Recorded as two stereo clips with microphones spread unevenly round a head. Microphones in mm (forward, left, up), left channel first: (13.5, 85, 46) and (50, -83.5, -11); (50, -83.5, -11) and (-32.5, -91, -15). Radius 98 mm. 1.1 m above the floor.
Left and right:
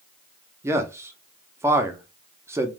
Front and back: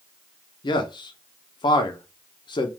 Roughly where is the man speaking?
Ahead.